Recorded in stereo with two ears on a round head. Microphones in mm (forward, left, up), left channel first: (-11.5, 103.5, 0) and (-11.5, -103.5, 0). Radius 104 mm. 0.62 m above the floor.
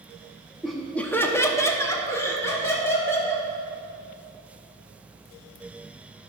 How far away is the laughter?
About 0.6 m.